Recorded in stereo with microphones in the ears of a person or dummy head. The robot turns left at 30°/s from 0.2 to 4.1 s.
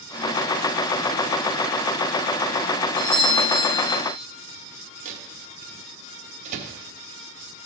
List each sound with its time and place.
3.0 s a doorbell: 70° left, 5.5 m; by 4.0 s 35° left, 5.5 m
5.0 s a microwave: 40° right (ahead or behind), 1.0 m